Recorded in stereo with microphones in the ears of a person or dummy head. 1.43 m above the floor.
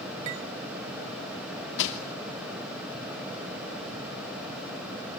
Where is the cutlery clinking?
25° right (ahead or behind), 0.5 m.